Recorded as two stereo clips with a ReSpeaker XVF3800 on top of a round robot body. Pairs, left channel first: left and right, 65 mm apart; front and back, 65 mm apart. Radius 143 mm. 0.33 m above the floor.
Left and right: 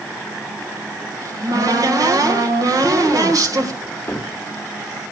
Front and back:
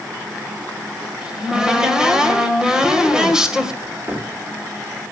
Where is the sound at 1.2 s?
100° right, 2 m.